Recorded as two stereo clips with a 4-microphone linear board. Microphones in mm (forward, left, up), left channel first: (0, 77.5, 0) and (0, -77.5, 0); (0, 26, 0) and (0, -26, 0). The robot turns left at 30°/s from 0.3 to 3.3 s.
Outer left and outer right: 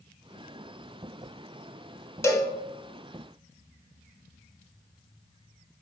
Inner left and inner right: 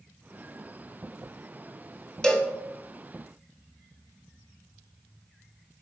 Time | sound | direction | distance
2.2 | a cowbell | 20° left (ahead or behind) | 0.6 m